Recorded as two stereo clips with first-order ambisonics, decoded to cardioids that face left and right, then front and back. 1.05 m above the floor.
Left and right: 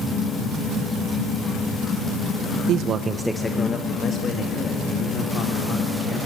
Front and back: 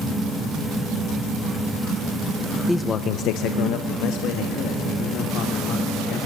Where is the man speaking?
90° right, 0.6 m; by 6.2 s 40° left, 4 m.